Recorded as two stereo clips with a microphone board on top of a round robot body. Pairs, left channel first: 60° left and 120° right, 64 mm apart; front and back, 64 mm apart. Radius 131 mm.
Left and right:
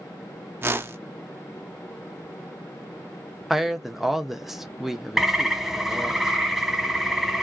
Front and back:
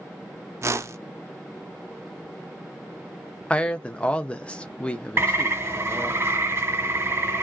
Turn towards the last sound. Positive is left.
turn(degrees=155)